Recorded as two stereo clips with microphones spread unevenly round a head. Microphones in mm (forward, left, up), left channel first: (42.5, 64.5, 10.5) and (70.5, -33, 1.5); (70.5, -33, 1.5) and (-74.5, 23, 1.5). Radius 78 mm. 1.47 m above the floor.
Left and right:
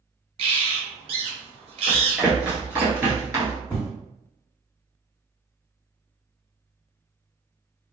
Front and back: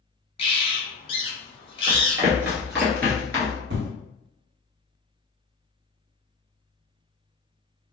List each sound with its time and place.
0.4 s a bird: 70° right, 0.8 m
1.9 s running footsteps: straight behind, 1.6 m; by 3.6 s 55° right, 1.6 m
3.7 s an explosion: straight behind, 0.9 m